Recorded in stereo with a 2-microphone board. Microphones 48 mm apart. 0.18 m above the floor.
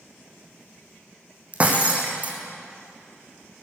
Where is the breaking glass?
30° right (ahead or behind), 2 m.